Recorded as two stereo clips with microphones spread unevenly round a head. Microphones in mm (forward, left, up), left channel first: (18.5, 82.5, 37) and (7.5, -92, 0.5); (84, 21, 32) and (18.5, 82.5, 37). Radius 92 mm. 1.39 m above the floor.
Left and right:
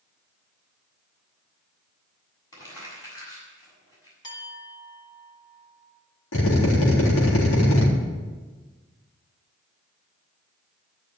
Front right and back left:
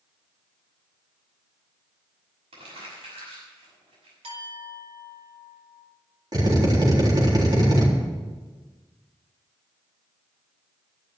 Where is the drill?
100° left, 3.5 m.